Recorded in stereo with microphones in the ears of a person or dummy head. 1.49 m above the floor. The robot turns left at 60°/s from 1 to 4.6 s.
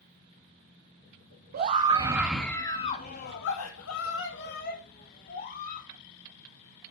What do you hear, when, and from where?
1.5 s a scream: 130° right, 2.0 m; by 5.9 s 45° left, 2.0 m